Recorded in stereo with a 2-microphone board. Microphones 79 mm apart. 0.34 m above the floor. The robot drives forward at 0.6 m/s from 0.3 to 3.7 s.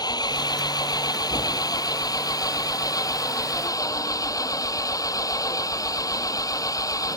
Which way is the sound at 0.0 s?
60° left (ahead or behind).